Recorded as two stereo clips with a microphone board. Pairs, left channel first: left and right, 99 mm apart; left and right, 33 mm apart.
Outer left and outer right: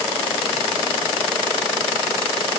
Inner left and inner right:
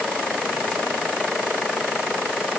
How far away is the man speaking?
No man speaking in this recording.